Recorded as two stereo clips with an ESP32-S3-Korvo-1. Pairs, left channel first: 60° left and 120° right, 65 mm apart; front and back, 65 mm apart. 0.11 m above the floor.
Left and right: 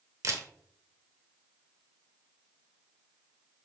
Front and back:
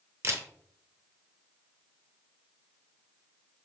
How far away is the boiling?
No boiling in this recording.